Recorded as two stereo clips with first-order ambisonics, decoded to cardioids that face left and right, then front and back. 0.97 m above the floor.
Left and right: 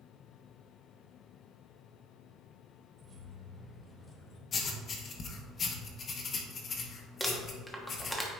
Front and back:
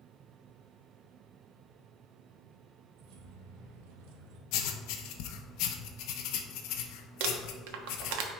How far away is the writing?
About 0.8 m.